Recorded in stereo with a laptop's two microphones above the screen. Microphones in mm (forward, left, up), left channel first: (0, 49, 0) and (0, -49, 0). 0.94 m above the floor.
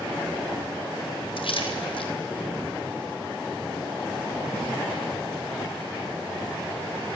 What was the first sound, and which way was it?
A splash, 65° left (ahead or behind).